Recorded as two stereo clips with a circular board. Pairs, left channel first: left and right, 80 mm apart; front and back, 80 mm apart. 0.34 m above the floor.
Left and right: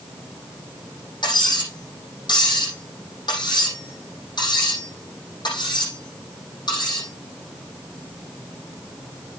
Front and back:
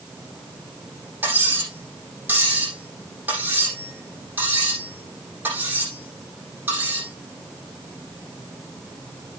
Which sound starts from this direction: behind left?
Cutlery clinking, at 1.2 s.